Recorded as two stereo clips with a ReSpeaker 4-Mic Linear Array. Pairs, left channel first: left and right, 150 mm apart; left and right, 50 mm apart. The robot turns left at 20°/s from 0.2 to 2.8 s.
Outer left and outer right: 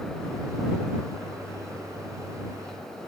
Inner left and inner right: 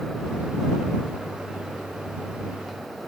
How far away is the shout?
I don't hear a shout.